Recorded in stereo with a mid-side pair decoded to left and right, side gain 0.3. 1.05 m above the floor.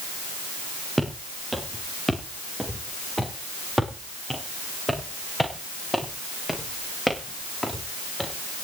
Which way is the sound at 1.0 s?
15° right.